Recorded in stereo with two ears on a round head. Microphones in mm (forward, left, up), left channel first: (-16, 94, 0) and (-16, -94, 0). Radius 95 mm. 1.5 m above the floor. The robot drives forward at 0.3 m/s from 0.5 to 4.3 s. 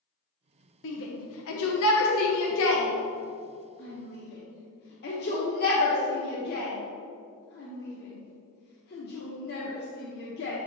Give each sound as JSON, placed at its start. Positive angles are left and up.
{"t": 0.8, "sound": "a shout", "side_deg": 55, "distance_m": 0.9}